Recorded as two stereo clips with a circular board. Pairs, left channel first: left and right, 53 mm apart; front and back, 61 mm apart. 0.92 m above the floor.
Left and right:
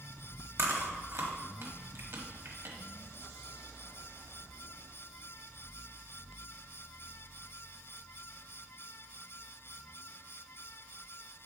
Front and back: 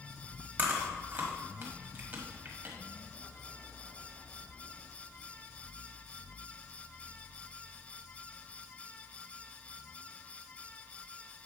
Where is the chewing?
130° right, 1.2 m.